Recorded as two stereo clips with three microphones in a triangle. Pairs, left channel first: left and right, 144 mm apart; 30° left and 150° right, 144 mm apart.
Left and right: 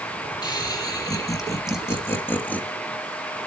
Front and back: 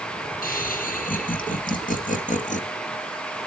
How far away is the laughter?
About 5 m.